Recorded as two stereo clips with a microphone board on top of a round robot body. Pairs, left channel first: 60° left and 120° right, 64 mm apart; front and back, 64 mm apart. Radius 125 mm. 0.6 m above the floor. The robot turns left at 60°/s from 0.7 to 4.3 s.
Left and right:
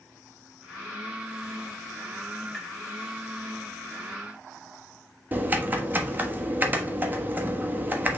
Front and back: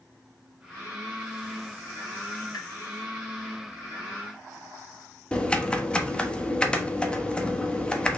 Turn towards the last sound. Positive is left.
turn(degrees=-70)